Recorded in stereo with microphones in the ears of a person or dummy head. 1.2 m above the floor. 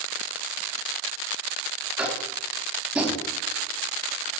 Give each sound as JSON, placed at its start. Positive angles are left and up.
{"t": 2.0, "sound": "tapping", "side_deg": -5, "distance_m": 3.0}